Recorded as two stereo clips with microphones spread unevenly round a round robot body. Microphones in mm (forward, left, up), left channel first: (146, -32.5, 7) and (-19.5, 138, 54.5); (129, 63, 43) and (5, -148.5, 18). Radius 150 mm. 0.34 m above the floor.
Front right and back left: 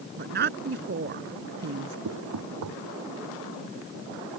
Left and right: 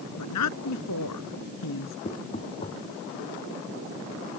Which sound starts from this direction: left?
A woman speaking, at 0.2 s.